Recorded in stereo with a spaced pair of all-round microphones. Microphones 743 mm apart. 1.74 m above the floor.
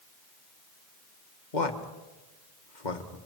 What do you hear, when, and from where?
1.5 s a man speaking: 75° left (ahead or behind), 1.9 m